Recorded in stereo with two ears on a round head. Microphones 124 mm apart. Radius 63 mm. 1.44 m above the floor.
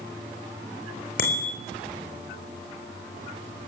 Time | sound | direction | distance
1.2 | a bicycle bell | 75° left (ahead or behind) | 4.5 m